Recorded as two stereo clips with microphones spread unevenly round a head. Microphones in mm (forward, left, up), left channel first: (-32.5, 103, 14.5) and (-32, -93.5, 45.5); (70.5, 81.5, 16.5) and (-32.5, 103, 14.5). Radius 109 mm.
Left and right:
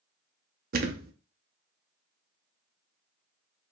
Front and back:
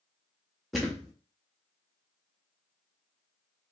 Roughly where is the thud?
Right.